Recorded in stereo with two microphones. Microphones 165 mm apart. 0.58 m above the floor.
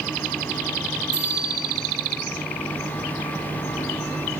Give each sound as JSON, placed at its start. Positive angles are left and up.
{"t": 1.1, "sound": "a bicycle bell", "side_deg": -25, "distance_m": 7.0}